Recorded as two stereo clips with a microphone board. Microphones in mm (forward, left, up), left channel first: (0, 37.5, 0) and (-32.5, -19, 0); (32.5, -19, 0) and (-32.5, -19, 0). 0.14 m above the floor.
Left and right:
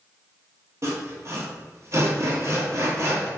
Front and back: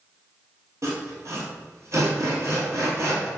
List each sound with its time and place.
0.8 s sawing: 150° right, 0.9 m